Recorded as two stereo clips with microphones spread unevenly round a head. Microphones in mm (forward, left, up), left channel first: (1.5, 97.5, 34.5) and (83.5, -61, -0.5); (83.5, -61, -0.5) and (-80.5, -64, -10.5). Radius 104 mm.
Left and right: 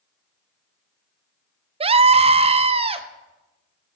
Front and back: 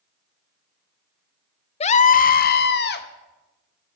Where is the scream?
40° right, 0.5 m; by 3.1 s 10° right, 1.1 m.